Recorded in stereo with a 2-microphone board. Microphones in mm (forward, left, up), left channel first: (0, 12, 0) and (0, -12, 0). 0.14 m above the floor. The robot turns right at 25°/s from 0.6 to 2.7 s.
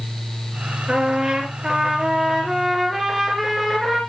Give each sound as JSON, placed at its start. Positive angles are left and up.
{"t": 0.9, "sound": "a trumpet", "azimuth_deg": -50, "distance_m": 2.5}